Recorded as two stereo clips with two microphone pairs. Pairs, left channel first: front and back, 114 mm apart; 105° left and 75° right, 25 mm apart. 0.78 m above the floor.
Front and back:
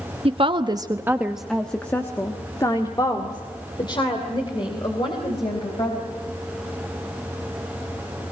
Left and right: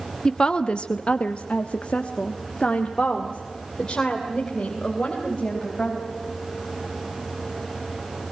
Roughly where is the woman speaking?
Behind.